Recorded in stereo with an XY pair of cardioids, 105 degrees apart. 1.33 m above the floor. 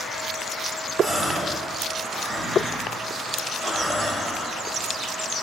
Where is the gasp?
25° right, 4 m.